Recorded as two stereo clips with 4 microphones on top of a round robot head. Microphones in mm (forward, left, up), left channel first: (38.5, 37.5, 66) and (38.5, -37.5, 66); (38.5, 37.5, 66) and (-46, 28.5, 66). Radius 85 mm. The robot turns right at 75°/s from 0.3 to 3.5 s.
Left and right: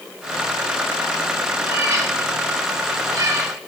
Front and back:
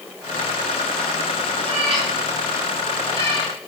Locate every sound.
1.6 s a cat meowing: 175° right, 5 m; by 3.5 s 30° right, 5 m